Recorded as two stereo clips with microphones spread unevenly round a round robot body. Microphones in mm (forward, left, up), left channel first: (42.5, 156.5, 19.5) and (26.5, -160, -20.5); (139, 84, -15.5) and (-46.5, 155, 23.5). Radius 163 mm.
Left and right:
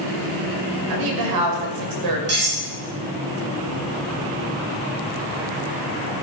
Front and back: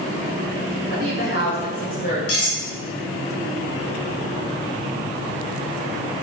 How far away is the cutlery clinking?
About 5 m.